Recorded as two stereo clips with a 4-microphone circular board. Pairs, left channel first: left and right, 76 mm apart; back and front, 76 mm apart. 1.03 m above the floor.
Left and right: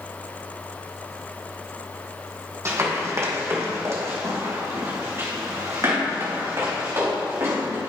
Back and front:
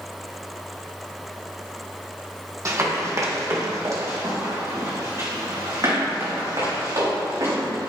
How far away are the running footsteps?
About 2.5 m.